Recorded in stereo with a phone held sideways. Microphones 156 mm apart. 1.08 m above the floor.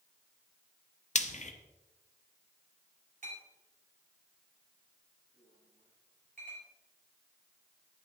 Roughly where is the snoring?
No snoring in this recording.